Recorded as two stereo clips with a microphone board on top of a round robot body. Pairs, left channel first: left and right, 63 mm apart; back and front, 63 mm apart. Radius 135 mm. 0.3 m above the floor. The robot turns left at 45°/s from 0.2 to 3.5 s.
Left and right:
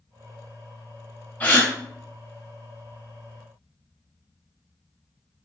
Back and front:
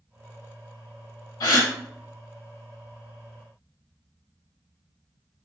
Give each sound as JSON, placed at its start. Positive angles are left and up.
{"t": 1.4, "sound": "a gasp", "azimuth_deg": 155, "distance_m": 0.7}